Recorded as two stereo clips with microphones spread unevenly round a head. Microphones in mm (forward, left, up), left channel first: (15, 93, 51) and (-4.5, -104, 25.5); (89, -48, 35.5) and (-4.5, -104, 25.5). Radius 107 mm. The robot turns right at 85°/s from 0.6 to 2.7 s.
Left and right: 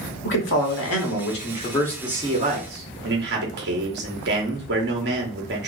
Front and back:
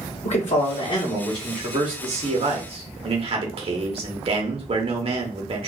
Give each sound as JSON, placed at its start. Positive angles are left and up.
{"t": 0.2, "sound": "a man speaking", "azimuth_deg": 55, "distance_m": 1.4}